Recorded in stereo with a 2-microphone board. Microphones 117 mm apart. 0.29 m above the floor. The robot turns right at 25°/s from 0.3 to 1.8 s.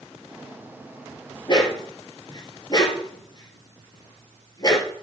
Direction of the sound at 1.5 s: 45° left (ahead or behind).